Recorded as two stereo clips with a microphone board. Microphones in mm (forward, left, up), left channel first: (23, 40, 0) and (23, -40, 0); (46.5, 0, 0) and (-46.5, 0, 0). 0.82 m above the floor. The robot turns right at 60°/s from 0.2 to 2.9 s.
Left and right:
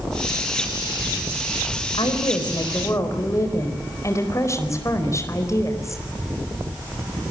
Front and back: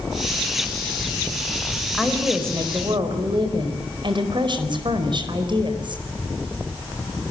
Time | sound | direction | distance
1.9 | a woman speaking | 85° left | 4.5 m